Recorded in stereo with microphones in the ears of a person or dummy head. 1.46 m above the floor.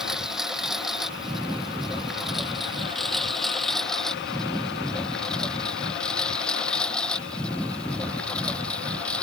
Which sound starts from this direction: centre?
A lawn mower, at 0.0 s.